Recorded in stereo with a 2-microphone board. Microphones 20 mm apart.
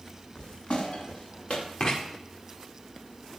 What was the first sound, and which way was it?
Footsteps, 75° left (ahead or behind).